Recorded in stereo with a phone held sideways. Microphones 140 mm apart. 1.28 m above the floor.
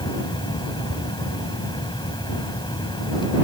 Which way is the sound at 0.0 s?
35° left (ahead or behind).